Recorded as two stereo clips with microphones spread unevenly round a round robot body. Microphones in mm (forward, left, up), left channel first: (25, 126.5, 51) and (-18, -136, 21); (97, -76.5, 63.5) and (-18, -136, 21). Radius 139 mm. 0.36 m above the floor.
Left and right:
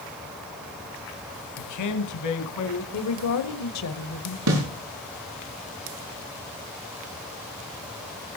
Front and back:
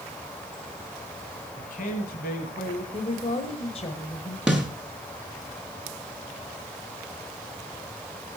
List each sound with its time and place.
1.6 s a man speaking: 75° left, 1.9 m; by 2.8 s 60° left, 3.5 m
2.9 s a woman speaking: 85° left, 1.6 m
4.5 s a snare drum: 75° right, 6 m